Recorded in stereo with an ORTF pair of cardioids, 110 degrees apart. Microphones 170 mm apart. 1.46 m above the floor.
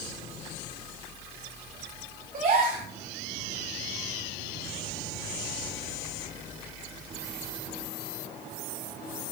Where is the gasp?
55° right, 6 m.